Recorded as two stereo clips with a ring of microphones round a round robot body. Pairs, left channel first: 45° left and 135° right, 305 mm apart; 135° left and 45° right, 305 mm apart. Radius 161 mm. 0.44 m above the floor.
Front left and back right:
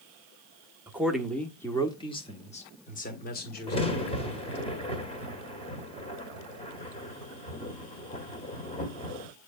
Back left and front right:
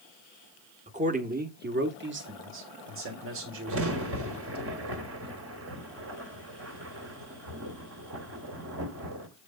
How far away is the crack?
About 1.8 m.